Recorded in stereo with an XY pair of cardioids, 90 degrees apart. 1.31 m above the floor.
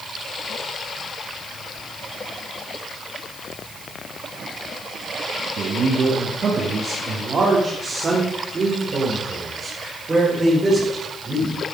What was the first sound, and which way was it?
A man speaking, 65° right.